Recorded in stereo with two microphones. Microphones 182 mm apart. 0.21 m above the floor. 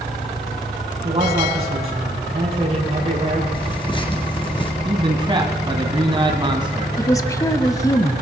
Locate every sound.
1.0 s a man speaking: 35° right (ahead or behind), 6 m
3.5 s tearing paper: 25° left (ahead or behind), 3 m
4.8 s a man speaking: 25° right (ahead or behind), 1.5 m
7.0 s a woman speaking: 20° left (ahead or behind), 1.0 m